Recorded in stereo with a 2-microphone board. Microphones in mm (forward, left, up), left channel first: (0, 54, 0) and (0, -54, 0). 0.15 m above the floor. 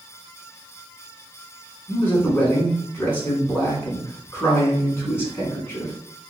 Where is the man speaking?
20° left (ahead or behind), 1.6 m.